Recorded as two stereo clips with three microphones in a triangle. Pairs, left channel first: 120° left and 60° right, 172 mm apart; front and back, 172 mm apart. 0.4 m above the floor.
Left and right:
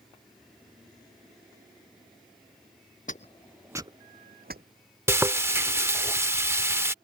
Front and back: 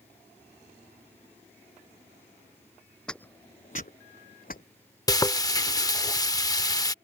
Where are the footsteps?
85° left; by 4.6 s 35° right.